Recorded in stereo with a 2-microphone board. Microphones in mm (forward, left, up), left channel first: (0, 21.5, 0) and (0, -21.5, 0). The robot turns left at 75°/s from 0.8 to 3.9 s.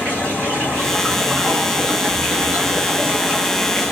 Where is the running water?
35° left, 1.8 m; by 3.9 s 165° left, 1.8 m.